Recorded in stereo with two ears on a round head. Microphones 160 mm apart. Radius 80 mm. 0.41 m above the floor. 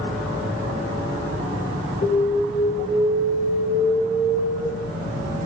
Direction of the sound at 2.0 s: 20° left (ahead or behind).